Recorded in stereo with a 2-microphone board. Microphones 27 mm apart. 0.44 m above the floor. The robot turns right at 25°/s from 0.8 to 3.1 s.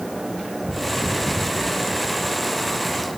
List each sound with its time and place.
Only background noise.